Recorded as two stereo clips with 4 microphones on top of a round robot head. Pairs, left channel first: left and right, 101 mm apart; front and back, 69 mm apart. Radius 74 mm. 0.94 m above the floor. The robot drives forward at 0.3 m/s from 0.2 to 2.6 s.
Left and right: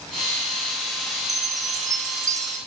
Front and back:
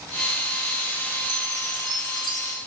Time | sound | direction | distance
1.3 | a chime | 145° right | 3 m